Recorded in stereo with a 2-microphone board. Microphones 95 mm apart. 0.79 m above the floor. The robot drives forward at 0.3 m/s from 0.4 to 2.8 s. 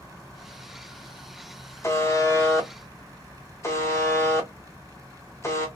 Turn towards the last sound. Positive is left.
turn(degrees=30)  # may be behind; listen again after turning